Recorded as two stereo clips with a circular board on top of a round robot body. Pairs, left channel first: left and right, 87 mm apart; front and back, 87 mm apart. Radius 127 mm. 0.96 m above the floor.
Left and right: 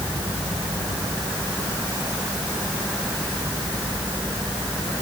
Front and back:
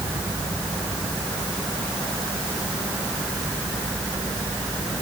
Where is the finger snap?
No finger snap in this recording.